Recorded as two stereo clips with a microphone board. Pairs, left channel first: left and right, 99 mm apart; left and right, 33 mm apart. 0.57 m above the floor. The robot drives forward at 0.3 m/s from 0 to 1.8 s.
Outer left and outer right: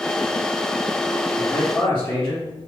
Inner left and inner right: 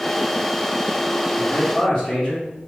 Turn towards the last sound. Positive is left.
turn(degrees=25)  # may be behind; listen again after turning